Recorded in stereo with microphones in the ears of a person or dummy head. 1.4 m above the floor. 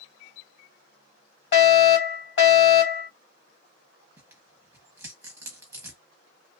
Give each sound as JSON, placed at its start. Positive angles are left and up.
{"t": 1.5, "sound": "a fire alarm", "side_deg": 60, "distance_m": 2.5}
{"t": 4.2, "sound": "tearing paper", "side_deg": -15, "distance_m": 1.2}